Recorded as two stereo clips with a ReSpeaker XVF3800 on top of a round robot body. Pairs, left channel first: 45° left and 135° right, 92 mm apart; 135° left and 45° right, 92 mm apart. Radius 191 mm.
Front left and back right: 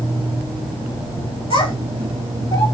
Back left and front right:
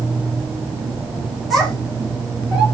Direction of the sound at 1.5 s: 45° left.